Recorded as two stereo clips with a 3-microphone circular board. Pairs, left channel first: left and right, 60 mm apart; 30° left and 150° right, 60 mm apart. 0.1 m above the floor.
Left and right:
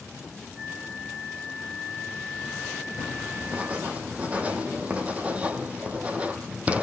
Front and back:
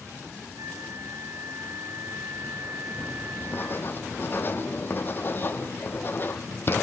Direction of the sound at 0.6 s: 160° right.